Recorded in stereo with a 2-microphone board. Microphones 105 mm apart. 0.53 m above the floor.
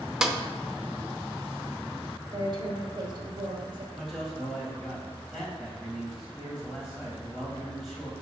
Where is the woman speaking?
45° right (ahead or behind), 1.9 m.